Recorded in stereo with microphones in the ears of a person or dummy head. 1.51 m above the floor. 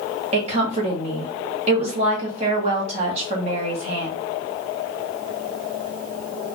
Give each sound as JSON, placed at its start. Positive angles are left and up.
{"t": 0.3, "sound": "a woman speaking", "side_deg": -40, "distance_m": 1.8}